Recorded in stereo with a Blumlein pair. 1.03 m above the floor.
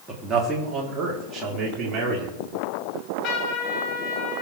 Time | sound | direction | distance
0.1 | a man speaking | 15° right | 2.5 m
2.9 | a trumpet | 30° left | 6.5 m